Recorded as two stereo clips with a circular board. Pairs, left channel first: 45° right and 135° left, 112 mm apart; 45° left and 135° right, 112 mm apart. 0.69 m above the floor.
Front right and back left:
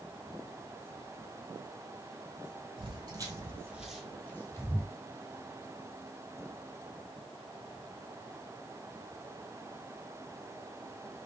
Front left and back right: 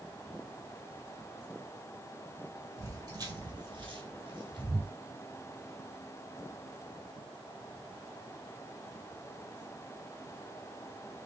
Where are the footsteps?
170° left, 1.4 m; by 4.9 s 95° right, 1.4 m.